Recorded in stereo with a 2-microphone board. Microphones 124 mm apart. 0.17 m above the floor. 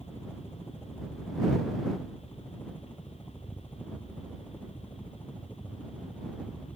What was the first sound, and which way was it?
A helicopter, 15° left (ahead or behind).